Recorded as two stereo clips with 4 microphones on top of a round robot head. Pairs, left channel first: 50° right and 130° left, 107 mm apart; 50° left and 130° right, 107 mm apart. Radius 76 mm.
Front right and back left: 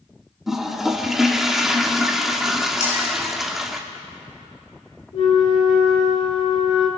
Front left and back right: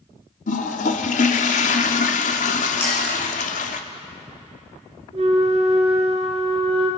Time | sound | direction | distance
0.5 | a toilet flushing | 45° left | 1.2 m
2.8 | a clink | 20° right | 6 m
5.1 | a flute | 95° right | 4 m